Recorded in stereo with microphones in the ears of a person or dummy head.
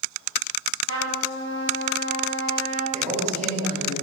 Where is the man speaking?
50° right (ahead or behind), 5.5 m.